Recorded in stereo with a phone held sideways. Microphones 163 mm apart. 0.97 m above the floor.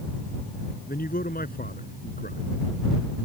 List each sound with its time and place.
0.9 s a man speaking: 65° left (ahead or behind)